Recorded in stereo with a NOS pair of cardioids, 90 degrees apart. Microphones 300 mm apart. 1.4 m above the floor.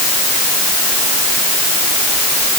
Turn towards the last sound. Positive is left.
No sound to turn to.